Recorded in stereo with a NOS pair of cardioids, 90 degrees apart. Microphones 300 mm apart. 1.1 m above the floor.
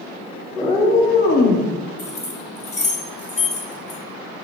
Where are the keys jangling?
20° left, 1.3 m.